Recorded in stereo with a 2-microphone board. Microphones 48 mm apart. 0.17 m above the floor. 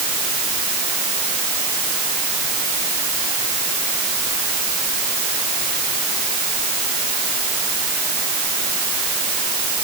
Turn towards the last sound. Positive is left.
No sound to turn to.